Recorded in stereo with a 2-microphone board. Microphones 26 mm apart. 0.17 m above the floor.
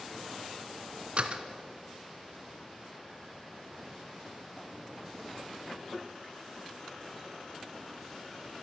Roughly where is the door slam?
Right.